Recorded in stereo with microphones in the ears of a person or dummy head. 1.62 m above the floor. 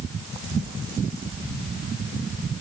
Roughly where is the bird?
I don't hear a bird.